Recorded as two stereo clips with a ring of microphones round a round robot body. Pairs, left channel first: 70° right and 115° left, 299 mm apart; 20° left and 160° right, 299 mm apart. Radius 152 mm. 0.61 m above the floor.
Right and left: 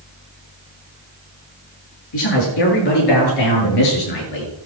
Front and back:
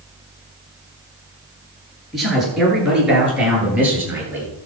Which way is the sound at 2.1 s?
70° right.